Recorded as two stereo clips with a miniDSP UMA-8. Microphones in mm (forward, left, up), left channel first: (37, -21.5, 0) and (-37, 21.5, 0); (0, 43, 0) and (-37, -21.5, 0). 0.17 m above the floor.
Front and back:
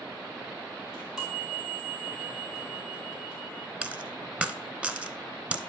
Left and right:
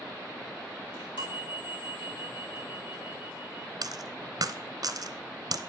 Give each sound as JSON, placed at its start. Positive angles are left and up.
{"t": 0.9, "sound": "a chime", "azimuth_deg": 65, "distance_m": 3.0}
{"t": 3.8, "sound": "a dropped coin", "azimuth_deg": -135, "distance_m": 0.7}